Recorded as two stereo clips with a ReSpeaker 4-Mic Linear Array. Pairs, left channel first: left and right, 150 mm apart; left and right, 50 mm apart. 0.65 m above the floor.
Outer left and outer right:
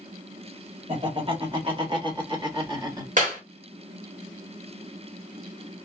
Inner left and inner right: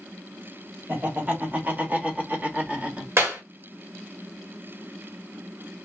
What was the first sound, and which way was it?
Laughter, 35° right (ahead or behind).